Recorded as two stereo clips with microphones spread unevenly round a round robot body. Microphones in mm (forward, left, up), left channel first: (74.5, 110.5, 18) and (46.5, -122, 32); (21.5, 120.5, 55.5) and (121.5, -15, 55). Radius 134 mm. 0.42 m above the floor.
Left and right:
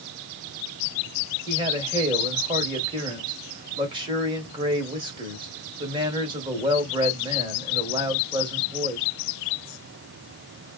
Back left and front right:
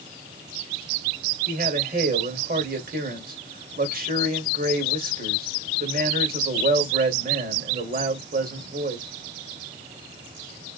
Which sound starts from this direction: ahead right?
A man speaking, at 1.5 s.